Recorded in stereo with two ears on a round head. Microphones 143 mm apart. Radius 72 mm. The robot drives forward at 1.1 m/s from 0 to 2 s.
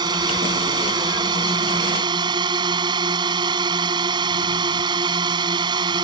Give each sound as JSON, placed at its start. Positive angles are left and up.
{"t": 0.0, "sound": "a drone", "side_deg": -25}